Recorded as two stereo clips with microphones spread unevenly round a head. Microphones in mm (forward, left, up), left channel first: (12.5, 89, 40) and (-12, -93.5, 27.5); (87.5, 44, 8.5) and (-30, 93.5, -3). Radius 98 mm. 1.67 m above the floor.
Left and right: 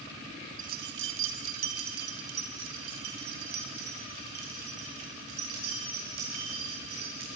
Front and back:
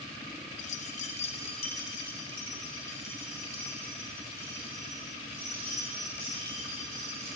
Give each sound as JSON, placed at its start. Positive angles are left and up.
{"t": 0.6, "sound": "keys jangling", "azimuth_deg": -45, "distance_m": 1.2}